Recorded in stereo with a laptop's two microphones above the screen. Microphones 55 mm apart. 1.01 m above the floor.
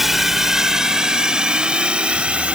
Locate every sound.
0.0 s a drone: 5° right (ahead or behind); by 2.6 s 20° right (ahead or behind)